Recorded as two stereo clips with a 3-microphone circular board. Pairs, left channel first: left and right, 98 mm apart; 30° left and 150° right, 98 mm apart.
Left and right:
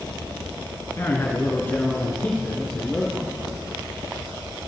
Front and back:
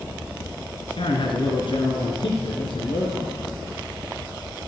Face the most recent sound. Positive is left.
turn(degrees=15)